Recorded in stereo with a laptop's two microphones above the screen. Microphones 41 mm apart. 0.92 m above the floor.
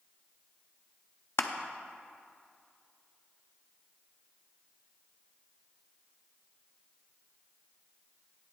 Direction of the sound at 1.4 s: 75° left (ahead or behind).